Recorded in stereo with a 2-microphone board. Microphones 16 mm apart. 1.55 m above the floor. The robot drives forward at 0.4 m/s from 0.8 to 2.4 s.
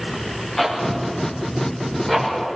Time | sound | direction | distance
0.6 | a zipper | 10° left (ahead or behind) | 6.5 m